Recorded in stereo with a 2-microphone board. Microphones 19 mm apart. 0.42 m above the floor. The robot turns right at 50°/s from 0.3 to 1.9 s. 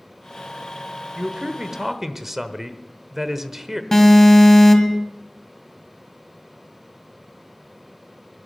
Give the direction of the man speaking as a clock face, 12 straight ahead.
2 o'clock.